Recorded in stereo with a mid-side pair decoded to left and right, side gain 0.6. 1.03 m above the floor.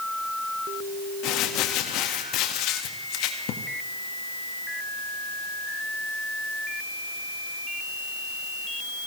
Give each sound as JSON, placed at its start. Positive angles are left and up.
{"t": 1.2, "sound": "crumpling", "azimuth_deg": 70, "distance_m": 1.5}